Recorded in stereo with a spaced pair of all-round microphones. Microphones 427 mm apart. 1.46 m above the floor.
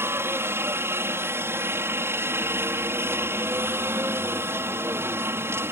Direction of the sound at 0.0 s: 5° right (ahead or behind).